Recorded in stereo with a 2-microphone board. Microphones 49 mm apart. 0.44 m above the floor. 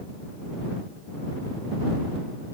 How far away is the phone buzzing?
No phone buzzing in this recording.